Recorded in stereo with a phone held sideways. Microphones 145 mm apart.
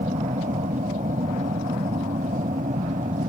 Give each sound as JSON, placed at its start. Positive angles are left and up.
{"t": 0.0, "sound": "an aircraft", "side_deg": -60}